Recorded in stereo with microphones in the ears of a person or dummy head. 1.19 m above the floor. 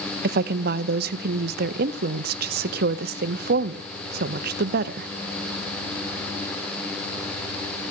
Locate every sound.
0.2 s a woman speaking: 55° right (ahead or behind), 0.8 m